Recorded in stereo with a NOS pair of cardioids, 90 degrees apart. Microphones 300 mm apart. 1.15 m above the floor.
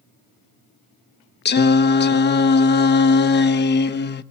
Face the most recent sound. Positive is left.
turn(degrees=35)